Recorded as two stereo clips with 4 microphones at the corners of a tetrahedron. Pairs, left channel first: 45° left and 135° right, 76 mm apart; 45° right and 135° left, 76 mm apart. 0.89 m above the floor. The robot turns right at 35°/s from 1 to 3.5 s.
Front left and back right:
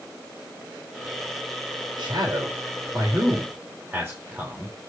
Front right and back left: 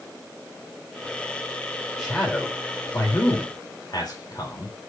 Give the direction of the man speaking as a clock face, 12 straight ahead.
4 o'clock.